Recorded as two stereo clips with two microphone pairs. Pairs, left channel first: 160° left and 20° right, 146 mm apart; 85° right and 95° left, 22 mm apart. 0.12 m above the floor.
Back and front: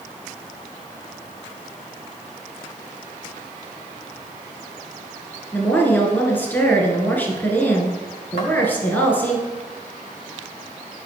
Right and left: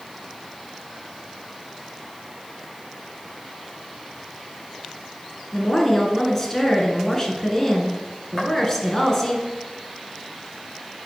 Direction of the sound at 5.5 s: 135° right.